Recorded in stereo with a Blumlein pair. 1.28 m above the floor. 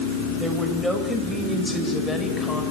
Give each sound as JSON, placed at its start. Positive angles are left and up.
{"t": 0.4, "sound": "a woman speaking", "azimuth_deg": -5, "distance_m": 6.5}